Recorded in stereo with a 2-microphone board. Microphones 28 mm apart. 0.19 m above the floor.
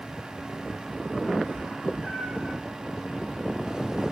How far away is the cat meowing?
About 5.5 m.